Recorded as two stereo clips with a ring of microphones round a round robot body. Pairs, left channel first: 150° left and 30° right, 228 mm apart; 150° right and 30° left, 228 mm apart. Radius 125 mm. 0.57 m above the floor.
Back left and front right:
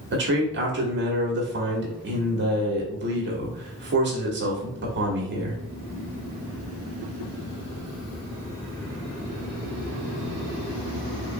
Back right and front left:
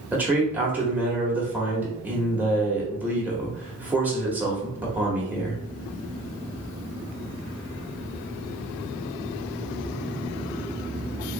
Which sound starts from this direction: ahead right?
A man speaking, at 0.1 s.